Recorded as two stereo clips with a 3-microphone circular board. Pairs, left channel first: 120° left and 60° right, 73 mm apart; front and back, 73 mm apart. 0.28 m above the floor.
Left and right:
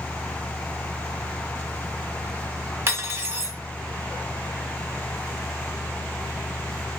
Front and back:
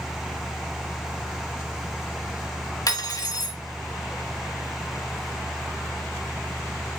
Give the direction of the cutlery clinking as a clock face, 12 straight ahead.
12 o'clock.